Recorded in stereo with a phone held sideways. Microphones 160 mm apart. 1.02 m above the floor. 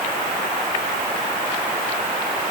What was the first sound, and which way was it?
Only background noise.